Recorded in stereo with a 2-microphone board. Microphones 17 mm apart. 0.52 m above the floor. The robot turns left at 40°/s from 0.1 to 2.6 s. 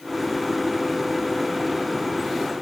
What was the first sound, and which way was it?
Only background noise.